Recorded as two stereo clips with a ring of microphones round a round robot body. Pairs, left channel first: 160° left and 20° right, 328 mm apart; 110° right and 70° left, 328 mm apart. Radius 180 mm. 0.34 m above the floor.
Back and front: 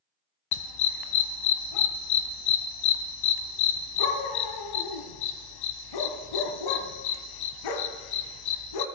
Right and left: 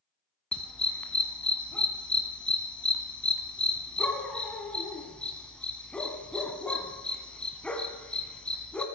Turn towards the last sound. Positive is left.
turn(degrees=160)